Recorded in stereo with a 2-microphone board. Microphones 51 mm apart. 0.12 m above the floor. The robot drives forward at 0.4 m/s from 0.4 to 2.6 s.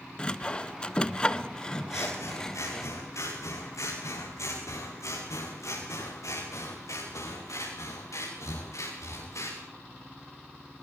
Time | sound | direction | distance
0.2 | sawing | 20° left (ahead or behind) | 0.6 m
1.9 | scissors | 85° left | 8 m